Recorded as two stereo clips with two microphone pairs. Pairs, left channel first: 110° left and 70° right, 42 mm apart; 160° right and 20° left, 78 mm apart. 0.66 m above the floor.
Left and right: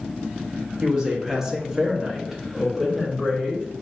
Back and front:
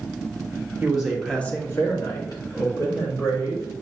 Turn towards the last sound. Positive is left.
turn(degrees=-160)